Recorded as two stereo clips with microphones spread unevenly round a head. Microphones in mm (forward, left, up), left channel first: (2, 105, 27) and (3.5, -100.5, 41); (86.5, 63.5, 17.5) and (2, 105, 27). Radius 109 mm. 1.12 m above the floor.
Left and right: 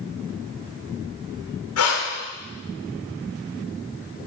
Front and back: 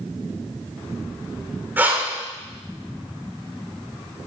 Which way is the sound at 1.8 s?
85° left.